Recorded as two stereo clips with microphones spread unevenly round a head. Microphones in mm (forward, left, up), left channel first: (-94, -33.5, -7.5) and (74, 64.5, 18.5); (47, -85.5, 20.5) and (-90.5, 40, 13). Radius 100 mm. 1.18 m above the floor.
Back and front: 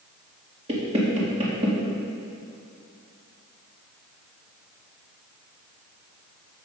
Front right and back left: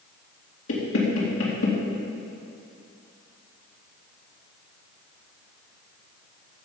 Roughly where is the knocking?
Ahead right.